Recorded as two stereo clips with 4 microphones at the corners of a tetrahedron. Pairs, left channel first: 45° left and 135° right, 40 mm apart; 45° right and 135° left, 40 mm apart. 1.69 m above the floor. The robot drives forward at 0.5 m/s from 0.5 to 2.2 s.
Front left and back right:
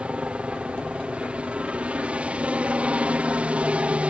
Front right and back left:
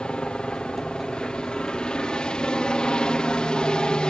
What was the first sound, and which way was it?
A helicopter, 100° right.